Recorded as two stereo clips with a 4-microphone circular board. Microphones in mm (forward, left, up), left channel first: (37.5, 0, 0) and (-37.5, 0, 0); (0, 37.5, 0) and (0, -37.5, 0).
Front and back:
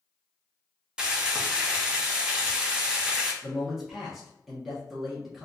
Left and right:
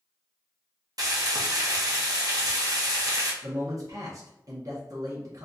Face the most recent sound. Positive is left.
turn(degrees=-95)